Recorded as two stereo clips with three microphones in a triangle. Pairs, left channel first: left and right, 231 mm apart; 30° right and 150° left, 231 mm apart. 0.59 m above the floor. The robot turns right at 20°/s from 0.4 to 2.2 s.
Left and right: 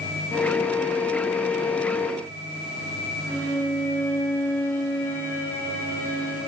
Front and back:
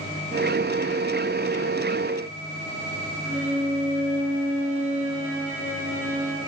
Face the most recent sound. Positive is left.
turn(degrees=170)